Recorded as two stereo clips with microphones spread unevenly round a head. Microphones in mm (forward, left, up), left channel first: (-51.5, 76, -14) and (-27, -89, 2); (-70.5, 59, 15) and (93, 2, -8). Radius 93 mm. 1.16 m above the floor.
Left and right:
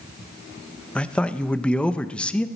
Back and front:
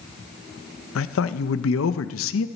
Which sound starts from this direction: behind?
A man speaking, at 0.9 s.